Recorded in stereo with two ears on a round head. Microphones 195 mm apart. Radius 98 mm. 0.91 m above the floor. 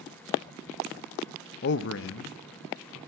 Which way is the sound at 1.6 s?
45° left (ahead or behind).